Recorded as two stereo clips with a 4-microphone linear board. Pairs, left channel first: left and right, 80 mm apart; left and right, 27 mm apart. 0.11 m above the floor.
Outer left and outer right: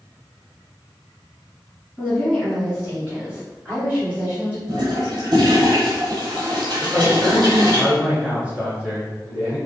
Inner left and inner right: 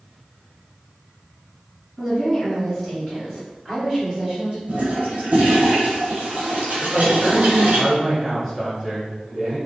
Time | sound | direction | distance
2.0 | a woman speaking | centre (ahead or behind) | 1.7 m
4.7 | a toilet flushing | 65° right (ahead or behind) | 1.1 m
6.8 | a man speaking | 20° right (ahead or behind) | 1.3 m